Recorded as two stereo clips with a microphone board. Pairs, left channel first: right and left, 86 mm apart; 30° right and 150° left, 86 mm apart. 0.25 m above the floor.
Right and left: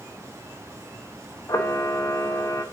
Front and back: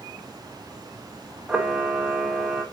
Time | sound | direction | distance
1.5 | a camera shutter | 135° right | 0.5 m